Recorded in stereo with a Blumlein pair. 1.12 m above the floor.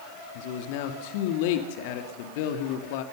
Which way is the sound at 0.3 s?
50° left.